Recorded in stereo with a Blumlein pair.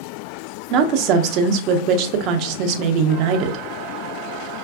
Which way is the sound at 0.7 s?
40° right.